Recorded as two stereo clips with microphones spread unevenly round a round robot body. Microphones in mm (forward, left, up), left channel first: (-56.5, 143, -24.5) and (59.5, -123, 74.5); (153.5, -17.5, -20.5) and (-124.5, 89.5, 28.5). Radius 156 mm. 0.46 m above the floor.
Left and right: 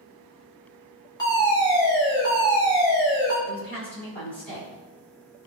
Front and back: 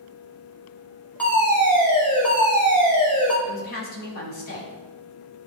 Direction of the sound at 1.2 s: 55° left.